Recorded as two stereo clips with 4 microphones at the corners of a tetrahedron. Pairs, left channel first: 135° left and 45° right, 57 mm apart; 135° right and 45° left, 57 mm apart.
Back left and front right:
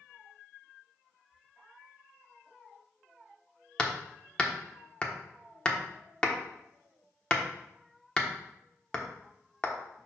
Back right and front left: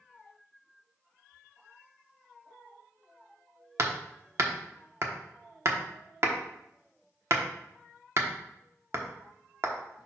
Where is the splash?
I don't hear a splash.